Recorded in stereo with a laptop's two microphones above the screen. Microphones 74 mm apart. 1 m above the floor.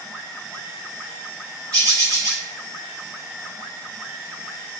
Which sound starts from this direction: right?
A bird, at 1.7 s.